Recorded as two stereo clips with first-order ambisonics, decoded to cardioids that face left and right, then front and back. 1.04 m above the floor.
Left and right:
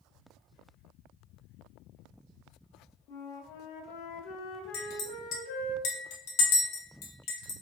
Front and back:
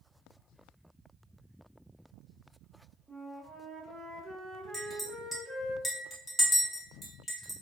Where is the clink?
80° left, 0.9 m.